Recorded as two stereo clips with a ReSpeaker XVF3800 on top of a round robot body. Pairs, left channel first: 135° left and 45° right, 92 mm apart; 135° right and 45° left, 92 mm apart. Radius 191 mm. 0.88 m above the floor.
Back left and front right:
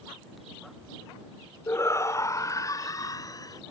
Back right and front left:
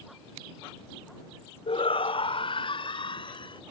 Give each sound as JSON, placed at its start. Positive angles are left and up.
{"t": 1.7, "sound": "a shout", "azimuth_deg": -160}